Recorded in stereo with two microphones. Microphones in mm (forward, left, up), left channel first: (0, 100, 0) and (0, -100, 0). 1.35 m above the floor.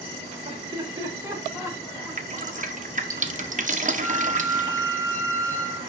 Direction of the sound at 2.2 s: 40° right (ahead or behind).